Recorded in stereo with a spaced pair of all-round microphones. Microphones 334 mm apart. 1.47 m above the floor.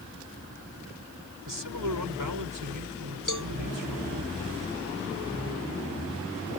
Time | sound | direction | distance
1.5 | a man speaking | 70° right (ahead or behind) | ?
3.3 | a cowbell | 65° left (ahead or behind) | ?